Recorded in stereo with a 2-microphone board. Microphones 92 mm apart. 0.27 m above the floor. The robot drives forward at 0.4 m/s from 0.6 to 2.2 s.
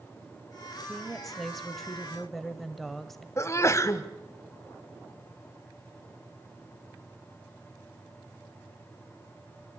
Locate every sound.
0.9 s a woman speaking: centre (ahead or behind), 1.8 m
3.4 s a sneeze: 30° left (ahead or behind), 1.5 m